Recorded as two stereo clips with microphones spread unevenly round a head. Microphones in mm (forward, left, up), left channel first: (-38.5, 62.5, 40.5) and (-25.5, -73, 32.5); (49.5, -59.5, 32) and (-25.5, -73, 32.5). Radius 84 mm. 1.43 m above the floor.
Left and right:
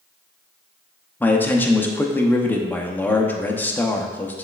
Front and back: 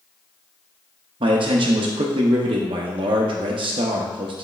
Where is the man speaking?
175° left, 0.7 m.